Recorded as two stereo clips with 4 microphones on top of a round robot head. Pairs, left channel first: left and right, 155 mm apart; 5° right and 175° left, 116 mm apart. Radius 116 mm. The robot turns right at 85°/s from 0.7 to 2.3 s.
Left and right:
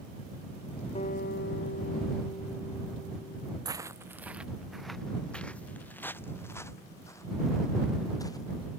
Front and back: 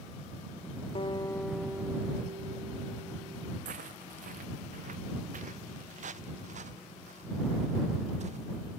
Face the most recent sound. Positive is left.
turn(degrees=155)